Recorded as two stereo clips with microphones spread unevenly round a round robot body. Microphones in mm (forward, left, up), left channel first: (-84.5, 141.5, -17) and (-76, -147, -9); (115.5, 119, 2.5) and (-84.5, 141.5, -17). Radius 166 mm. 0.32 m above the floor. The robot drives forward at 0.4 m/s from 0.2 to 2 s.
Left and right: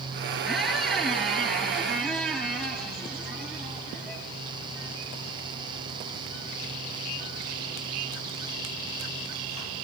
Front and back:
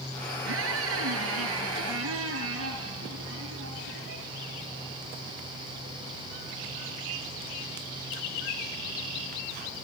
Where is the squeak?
Straight behind, 3 m.